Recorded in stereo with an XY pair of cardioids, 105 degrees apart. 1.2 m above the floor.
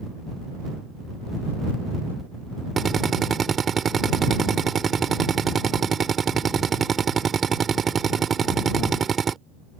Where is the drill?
40° right.